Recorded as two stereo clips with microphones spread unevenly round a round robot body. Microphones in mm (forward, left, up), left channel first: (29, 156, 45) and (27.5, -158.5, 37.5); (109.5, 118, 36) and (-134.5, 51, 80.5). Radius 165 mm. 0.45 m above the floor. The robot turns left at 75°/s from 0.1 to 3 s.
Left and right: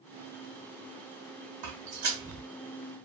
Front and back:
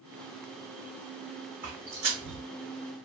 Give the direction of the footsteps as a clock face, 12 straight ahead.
4 o'clock.